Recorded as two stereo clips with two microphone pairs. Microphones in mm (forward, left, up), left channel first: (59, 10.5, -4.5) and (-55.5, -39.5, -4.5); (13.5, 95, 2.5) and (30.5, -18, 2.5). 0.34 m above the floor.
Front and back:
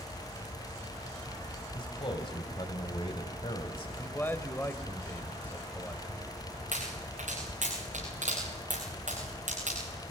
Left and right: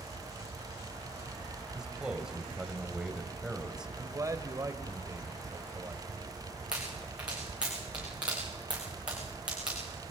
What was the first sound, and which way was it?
A man speaking, straight ahead.